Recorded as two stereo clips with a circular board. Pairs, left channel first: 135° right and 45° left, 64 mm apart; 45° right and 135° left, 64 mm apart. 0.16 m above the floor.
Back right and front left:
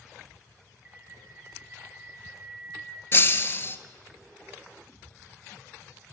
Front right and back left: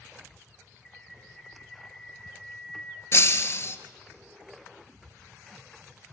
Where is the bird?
35° left, 0.7 m.